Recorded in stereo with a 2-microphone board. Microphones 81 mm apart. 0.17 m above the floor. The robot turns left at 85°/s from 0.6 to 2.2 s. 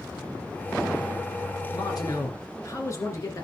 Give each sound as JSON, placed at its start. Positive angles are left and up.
{"t": 1.7, "sound": "a man speaking", "azimuth_deg": 90, "distance_m": 2.5}